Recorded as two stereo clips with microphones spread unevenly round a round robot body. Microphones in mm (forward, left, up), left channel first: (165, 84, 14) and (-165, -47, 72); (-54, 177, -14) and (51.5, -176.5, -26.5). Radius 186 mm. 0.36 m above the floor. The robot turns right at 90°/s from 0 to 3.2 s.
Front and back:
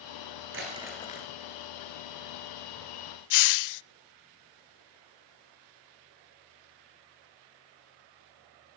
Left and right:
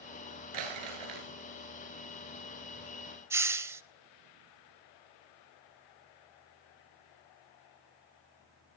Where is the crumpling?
100° right, 6 m; by 1.3 s 35° right, 6 m.